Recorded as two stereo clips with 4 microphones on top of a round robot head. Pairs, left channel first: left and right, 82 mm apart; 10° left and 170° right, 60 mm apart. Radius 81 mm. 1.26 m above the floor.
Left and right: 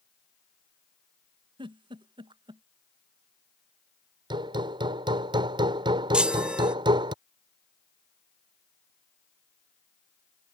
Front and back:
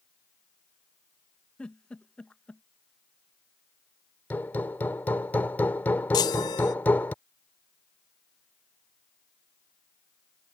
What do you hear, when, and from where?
1.6 s a giggle: 70° right
4.3 s hammering: 60° right
6.1 s a chime: 15° right